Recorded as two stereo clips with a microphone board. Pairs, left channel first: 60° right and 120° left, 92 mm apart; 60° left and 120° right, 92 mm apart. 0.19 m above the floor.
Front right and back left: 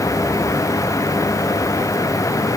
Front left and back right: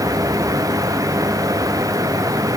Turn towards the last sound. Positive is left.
No sound to turn to.